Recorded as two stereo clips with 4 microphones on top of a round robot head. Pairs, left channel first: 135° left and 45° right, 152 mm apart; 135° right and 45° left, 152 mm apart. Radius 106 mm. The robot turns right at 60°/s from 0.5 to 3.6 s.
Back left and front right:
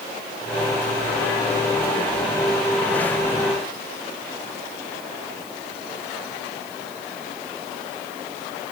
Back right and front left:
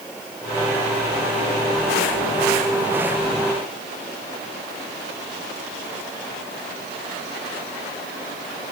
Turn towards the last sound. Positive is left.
No sound to turn to.